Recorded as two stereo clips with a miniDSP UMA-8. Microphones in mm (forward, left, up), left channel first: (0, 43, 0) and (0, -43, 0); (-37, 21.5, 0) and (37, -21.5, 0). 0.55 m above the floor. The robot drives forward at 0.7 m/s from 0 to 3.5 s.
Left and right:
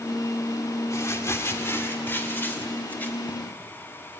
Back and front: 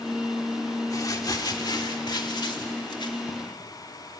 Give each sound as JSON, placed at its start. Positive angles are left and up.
{"t": 0.9, "sound": "crumpling", "azimuth_deg": 125, "distance_m": 1.5}